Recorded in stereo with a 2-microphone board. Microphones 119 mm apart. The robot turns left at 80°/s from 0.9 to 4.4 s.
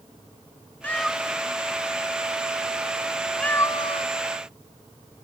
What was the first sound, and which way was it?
A cat meowing, 15° left (ahead or behind).